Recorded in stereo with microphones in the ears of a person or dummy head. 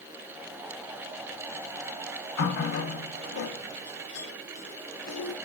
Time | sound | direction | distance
2.4 | a running tap | 60° left (ahead or behind) | 0.6 m